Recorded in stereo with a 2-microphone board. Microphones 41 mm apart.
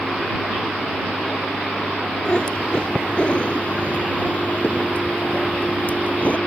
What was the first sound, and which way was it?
A cat meowing, 25° left (ahead or behind).